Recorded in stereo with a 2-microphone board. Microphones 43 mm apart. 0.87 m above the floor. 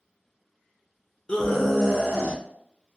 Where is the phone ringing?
No phone ringing in this recording.